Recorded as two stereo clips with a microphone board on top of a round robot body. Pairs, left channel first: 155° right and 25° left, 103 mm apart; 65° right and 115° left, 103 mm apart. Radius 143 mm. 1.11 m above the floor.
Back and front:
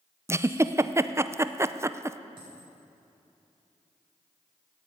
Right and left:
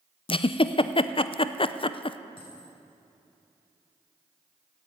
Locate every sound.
0.3 s a giggle: 40° right, 0.8 m
2.4 s a dropped coin: 25° right, 7 m